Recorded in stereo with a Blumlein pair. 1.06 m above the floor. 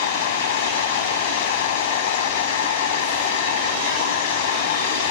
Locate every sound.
0.0 s a machine running: 55° left